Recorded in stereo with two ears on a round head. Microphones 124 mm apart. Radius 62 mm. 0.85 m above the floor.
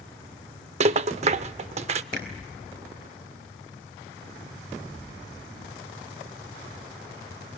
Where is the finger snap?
75° right (ahead or behind), 4.5 m.